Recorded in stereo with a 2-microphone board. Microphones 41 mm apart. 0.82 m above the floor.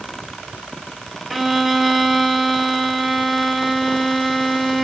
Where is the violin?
Centre (ahead or behind), 0.9 m.